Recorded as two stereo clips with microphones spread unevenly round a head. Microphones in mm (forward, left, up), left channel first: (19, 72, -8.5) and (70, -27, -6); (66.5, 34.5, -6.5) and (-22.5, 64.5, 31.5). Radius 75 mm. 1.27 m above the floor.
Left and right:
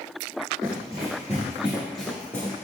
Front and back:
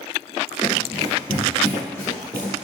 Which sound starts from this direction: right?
Running footsteps, at 0.6 s.